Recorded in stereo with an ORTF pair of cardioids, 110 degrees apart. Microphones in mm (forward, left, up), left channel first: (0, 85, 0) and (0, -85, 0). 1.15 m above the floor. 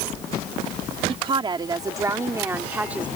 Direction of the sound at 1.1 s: 35° right.